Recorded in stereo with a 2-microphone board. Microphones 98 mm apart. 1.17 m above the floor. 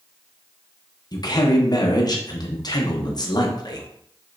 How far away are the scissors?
I don't hear scissors.